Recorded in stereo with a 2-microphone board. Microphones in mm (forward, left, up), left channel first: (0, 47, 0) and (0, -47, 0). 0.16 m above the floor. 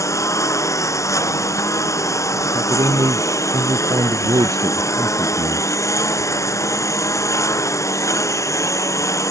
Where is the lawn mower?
35° left (ahead or behind).